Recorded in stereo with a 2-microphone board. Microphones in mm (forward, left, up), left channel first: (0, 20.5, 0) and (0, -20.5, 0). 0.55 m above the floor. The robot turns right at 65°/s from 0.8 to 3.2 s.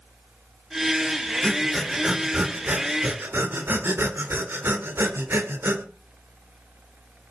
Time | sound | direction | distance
1.4 | breathing | 25° left (ahead or behind) | 1.5 m